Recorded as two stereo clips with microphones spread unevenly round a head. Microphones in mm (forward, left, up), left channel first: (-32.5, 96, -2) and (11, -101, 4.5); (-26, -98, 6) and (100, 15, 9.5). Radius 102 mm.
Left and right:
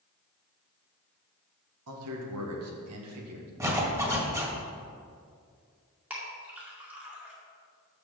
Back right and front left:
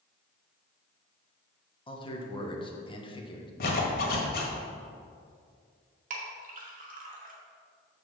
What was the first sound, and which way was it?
A man speaking, 80° right.